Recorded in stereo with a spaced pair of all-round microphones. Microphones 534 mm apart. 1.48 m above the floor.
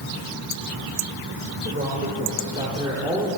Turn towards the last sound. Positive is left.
turn(degrees=-5)  # may be behind; listen again after turning